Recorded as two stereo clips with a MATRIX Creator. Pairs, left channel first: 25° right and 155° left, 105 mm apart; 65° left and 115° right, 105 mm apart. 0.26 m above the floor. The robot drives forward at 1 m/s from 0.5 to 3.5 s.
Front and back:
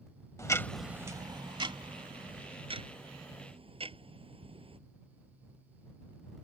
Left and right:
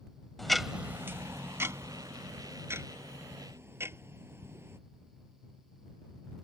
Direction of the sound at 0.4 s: 20° right.